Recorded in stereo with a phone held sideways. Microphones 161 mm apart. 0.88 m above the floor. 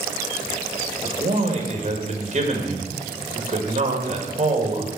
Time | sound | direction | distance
1.0 | a man speaking | 45° right (ahead or behind) | 1.5 m